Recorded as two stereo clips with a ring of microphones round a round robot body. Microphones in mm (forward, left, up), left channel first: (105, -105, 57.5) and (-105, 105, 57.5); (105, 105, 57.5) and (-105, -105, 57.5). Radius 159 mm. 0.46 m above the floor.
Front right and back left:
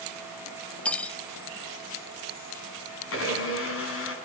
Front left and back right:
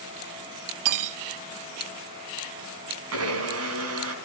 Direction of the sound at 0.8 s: 130° right.